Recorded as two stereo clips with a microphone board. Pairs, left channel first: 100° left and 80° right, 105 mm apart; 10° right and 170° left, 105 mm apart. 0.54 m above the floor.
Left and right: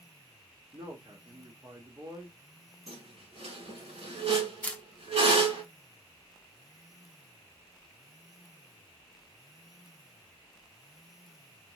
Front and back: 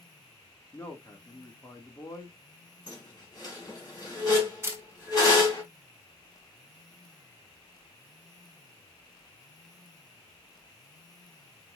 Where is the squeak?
65° right, 3.5 m.